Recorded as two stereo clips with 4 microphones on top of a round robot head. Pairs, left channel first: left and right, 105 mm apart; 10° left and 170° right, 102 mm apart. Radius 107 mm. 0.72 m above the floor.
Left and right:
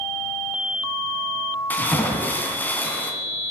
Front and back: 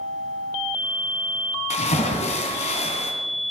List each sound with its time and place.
1.7 s a splash: 15° left, 3 m